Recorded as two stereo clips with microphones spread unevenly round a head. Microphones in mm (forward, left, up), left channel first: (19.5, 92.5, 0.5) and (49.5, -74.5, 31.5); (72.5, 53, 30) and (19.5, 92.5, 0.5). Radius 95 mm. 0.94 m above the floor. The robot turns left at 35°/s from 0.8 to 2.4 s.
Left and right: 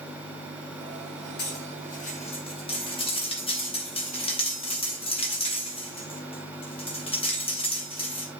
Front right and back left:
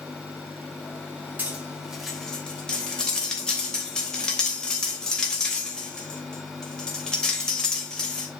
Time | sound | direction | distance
1.4 | cutlery clinking | 75° left | 3 m